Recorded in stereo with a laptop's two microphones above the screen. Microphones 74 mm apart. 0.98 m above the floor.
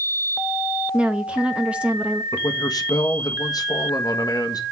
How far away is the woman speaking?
About 0.8 m.